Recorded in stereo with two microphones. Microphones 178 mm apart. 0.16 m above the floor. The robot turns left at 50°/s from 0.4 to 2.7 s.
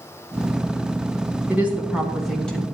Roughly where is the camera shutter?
No camera shutter in this recording.